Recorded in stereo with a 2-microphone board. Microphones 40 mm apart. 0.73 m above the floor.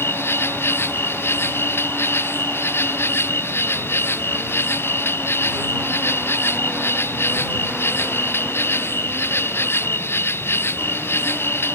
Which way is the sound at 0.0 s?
75° left (ahead or behind).